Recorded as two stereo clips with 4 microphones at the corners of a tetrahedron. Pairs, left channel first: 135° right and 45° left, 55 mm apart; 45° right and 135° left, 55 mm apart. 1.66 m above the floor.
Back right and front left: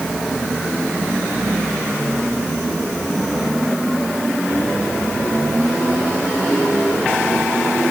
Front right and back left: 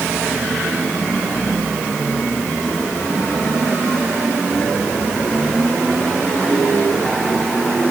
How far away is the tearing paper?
I don't hear tearing paper.